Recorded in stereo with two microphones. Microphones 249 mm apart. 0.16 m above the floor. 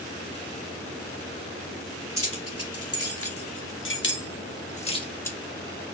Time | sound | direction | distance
2.2 | keys jangling | 70° left (ahead or behind) | 2.5 m